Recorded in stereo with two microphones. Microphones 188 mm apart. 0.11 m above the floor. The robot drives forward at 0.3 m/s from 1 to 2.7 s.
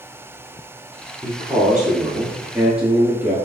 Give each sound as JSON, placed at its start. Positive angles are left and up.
{"t": 1.2, "sound": "a man speaking", "side_deg": -10, "distance_m": 1.1}